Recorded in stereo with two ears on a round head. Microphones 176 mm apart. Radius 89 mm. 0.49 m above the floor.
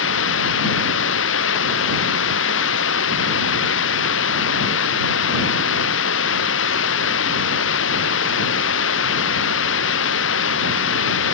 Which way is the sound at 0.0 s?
65° left (ahead or behind).